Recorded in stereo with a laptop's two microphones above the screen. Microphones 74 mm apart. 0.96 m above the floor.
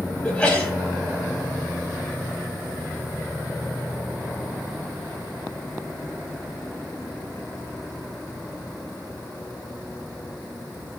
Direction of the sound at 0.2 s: 10° left (ahead or behind).